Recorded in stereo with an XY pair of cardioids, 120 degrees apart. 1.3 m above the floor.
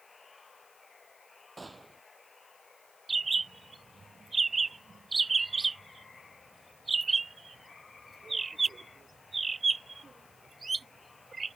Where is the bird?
20° right.